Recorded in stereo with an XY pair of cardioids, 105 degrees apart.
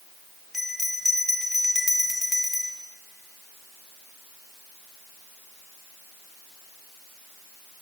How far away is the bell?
About 1.2 m.